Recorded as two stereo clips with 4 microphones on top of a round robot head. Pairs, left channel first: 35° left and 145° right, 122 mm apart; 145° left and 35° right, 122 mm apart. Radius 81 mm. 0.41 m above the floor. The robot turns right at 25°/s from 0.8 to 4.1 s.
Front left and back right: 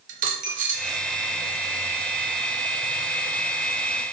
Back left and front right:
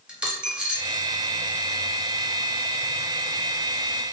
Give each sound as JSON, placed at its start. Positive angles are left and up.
{"t": 0.1, "sound": "a dropped coin", "azimuth_deg": -120, "distance_m": 0.7}